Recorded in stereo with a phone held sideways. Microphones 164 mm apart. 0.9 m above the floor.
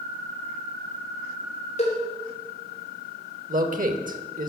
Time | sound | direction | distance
1.8 | a cowbell | 45° left (ahead or behind) | 3 m
3.5 | a man speaking | 55° right (ahead or behind) | 1.2 m